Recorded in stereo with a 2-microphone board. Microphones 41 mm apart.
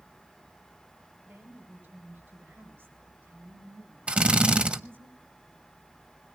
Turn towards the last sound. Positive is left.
turn(degrees=-35)  # may be behind; listen again after turning